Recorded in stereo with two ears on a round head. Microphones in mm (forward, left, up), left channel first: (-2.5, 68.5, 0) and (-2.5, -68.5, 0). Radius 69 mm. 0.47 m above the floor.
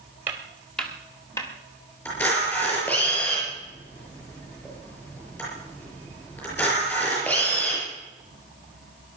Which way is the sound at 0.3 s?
15° right (ahead or behind).